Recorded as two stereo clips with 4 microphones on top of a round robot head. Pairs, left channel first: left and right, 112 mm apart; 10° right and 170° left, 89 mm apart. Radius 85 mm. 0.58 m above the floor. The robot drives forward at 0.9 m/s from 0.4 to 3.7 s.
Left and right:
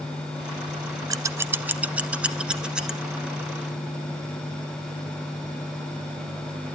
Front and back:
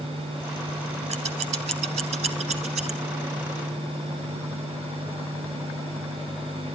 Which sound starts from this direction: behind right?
Scissors, at 1.1 s.